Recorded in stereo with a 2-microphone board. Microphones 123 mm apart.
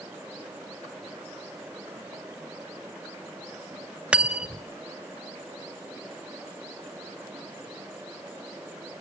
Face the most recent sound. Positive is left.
turn(degrees=-10)  # may be behind; listen again after turning